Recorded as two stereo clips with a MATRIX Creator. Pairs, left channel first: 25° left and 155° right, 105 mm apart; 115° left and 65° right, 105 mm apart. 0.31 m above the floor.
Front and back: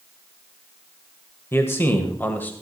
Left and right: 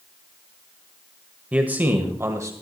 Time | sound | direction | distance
1.5 | a man speaking | 5° right | 1.4 m